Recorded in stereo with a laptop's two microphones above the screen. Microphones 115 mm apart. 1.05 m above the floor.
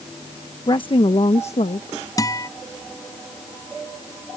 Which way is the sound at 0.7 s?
40° left (ahead or behind).